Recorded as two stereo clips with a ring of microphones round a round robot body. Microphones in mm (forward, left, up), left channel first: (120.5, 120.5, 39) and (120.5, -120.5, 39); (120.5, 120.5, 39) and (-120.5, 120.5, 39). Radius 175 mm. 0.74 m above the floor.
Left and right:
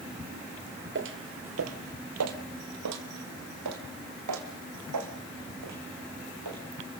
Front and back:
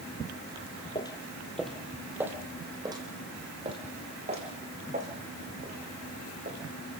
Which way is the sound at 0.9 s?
70° right.